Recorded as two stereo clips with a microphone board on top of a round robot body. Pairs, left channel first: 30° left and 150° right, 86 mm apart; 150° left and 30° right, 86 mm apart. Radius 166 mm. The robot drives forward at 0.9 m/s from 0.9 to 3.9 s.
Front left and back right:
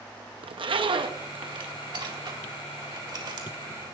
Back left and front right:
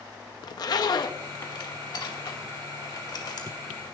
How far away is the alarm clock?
I don't hear an alarm clock.